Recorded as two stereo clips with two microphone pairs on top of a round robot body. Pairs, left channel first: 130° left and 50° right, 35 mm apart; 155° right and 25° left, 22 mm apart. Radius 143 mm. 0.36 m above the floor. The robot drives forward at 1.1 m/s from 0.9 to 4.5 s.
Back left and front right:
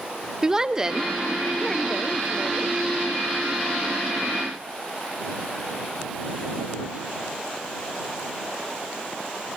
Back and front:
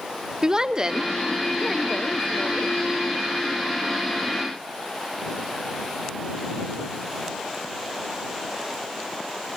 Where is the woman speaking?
35° left, 1.1 m; by 2.8 s 165° left, 1.8 m.